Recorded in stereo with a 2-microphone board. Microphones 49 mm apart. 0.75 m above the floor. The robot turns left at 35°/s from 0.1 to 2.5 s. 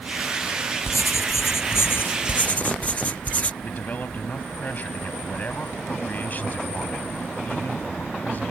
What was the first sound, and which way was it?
Writing, 90° left.